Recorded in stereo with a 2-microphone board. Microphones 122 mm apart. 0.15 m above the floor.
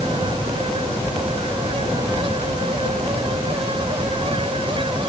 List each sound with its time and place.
Only background noise.